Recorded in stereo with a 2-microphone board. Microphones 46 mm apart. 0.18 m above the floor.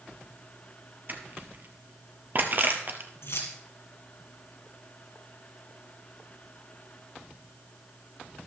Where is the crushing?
45° right (ahead or behind), 1.3 m.